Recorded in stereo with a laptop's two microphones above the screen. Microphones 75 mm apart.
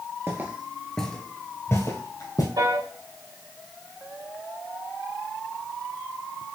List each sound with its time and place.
0.3 s footsteps: 35° right (ahead or behind), 1.3 m; by 2.5 s 50° left (ahead or behind), 2.5 m
2.6 s a piano: 75° right (ahead or behind), 2 m